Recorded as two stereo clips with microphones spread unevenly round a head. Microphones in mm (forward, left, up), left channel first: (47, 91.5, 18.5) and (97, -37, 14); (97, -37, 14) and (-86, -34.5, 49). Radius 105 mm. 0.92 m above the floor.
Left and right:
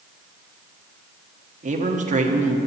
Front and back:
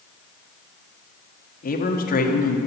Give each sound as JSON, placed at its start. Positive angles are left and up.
{"t": 1.6, "sound": "a man speaking", "azimuth_deg": -40, "distance_m": 1.4}